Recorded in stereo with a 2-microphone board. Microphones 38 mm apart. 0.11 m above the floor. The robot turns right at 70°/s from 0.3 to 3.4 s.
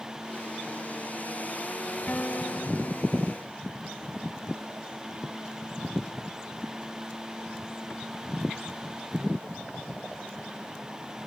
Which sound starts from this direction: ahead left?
A guitar, at 2.1 s.